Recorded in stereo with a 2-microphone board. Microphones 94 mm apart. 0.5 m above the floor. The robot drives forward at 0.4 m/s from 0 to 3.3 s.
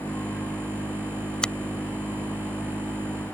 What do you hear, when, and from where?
1.4 s a finger snap: 10° left (ahead or behind)